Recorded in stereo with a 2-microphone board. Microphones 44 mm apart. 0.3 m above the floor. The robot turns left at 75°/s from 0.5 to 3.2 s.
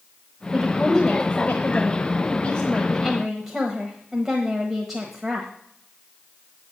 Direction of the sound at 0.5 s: 165° right.